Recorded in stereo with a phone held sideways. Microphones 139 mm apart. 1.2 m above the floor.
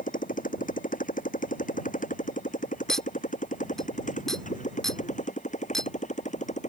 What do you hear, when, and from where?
0.0 s a motorcycle: 75° left (ahead or behind); by 6.7 s 60° left (ahead or behind)
2.9 s a clink: 5° left (ahead or behind)